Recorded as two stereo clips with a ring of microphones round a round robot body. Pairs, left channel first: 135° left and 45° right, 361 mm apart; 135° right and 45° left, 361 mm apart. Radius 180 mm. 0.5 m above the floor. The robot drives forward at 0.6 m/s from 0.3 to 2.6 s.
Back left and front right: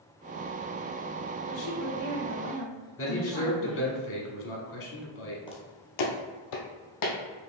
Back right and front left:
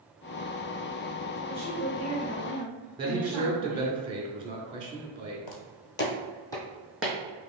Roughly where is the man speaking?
Behind left.